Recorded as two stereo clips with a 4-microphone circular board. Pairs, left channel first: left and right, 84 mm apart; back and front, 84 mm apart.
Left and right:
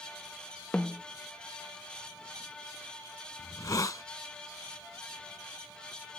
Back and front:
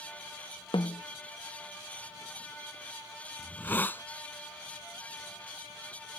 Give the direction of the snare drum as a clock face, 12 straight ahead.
6 o'clock.